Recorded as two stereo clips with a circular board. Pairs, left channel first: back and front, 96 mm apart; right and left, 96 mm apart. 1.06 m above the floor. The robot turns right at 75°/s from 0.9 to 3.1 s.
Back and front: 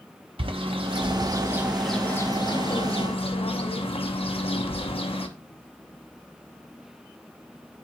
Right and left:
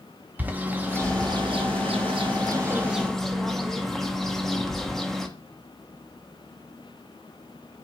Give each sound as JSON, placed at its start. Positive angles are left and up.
{"t": 0.4, "sound": "a bird", "azimuth_deg": 20, "distance_m": 0.9}